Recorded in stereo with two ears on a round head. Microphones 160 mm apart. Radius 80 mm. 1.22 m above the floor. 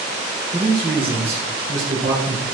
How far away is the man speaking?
About 1.5 m.